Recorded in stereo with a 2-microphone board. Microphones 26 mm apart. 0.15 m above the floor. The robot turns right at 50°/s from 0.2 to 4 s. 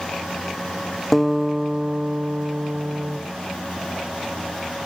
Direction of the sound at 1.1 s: 175° left.